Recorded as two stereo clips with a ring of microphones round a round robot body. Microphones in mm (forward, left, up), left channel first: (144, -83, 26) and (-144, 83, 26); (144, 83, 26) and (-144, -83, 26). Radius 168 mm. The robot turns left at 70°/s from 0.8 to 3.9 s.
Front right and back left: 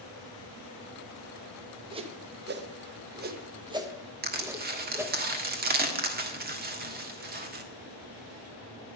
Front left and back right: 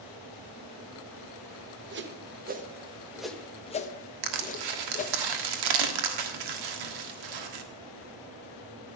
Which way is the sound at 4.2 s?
145° right.